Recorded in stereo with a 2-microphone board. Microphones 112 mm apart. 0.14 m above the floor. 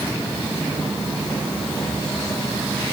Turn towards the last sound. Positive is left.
No sound to turn to.